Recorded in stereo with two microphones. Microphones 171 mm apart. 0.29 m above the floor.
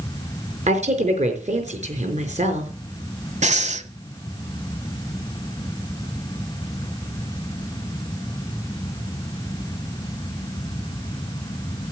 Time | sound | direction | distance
0.7 | a woman speaking | 40° right (ahead or behind) | 4.5 m
3.4 | breathing | 45° right (ahead or behind) | 1.1 m